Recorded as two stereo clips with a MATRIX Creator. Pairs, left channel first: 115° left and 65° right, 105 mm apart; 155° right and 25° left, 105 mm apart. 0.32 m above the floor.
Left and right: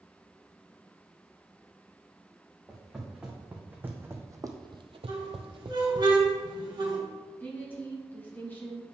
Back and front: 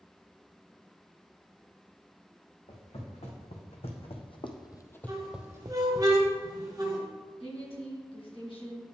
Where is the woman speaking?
Straight behind, 2 m.